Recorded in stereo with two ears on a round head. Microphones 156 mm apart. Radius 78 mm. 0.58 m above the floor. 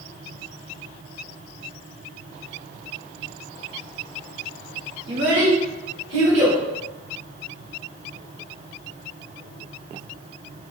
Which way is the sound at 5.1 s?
75° right (ahead or behind).